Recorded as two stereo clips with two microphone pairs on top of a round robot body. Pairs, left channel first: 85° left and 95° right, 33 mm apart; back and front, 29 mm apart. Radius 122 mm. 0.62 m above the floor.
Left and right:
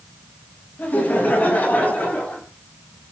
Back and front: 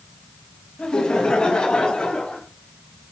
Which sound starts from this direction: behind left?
Laughter, at 0.8 s.